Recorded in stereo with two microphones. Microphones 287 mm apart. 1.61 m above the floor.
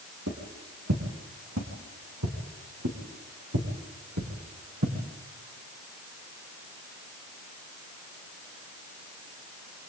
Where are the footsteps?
55° right (ahead or behind), 5 m; by 4.9 s 65° right (ahead or behind), 6.5 m.